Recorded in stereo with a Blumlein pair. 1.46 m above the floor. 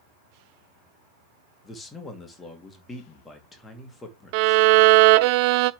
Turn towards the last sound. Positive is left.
turn(degrees=-45)